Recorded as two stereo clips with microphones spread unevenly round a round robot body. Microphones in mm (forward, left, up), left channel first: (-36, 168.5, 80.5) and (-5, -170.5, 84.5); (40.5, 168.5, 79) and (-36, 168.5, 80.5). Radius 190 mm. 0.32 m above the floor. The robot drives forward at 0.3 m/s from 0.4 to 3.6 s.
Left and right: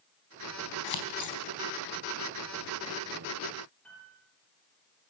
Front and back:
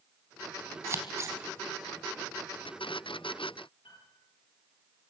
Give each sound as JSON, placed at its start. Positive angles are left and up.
{"t": 0.8, "sound": "scissors", "azimuth_deg": 125, "distance_m": 3.5}
{"t": 3.8, "sound": "a piano", "azimuth_deg": 10, "distance_m": 8.0}